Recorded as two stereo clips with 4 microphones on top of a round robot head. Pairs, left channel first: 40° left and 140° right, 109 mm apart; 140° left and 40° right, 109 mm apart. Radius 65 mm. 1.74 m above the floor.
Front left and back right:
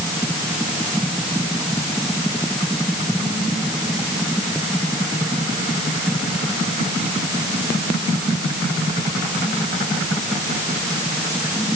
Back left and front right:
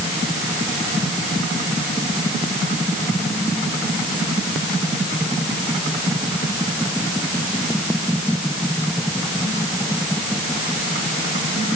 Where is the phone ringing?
I don't hear a phone ringing.